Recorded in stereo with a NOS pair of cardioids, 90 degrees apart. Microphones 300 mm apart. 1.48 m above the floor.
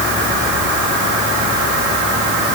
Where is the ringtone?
No ringtone in this recording.